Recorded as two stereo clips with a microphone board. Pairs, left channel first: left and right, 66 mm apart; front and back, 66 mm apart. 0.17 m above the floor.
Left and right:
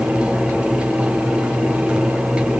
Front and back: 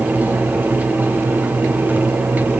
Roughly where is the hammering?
No hammering in this recording.